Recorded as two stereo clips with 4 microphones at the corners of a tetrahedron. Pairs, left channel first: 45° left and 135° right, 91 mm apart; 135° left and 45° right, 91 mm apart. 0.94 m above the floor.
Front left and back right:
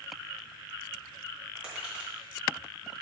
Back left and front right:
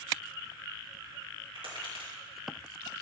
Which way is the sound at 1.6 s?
55° right.